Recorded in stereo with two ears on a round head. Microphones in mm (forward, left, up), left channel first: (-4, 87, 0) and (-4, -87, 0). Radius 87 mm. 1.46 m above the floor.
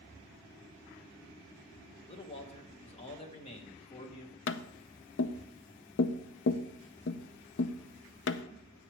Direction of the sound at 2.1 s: 30° left (ahead or behind).